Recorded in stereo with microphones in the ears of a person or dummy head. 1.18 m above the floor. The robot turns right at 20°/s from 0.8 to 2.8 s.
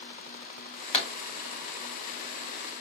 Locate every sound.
0.9 s a pop: 40° left (ahead or behind), 1.3 m; by 1.1 s 35° left (ahead or behind), 1.3 m